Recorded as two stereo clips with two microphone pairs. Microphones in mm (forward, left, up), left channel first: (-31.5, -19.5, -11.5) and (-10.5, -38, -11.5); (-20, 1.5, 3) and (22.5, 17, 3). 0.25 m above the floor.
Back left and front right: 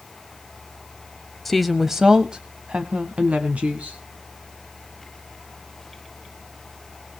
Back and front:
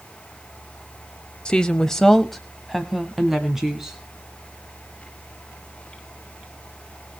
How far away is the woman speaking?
About 1.0 m.